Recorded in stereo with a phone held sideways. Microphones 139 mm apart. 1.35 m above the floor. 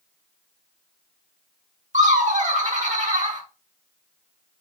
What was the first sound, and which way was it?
Laughter, 60° right (ahead or behind).